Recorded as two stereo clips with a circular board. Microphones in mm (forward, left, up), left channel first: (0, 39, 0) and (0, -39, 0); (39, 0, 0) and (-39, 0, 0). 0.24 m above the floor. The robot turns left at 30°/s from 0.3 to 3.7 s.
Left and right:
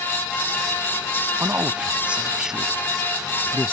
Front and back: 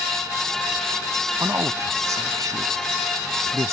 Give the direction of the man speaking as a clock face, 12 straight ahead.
5 o'clock.